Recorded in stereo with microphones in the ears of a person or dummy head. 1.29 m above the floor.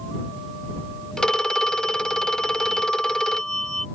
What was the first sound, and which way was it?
A phone ringing, 5° left (ahead or behind).